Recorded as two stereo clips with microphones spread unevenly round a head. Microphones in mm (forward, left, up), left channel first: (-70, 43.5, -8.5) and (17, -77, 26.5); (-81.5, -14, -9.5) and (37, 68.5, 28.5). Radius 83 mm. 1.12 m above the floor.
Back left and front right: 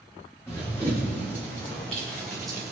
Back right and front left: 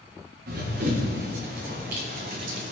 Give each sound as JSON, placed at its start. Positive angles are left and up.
{"t": 0.5, "sound": "running footsteps", "azimuth_deg": 40, "distance_m": 4.0}